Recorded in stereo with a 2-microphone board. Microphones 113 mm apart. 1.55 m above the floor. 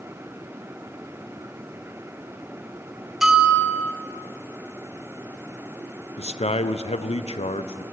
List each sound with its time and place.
3.2 s a bell: 5° right (ahead or behind), 2 m
6.2 s a man speaking: 70° left (ahead or behind), 0.7 m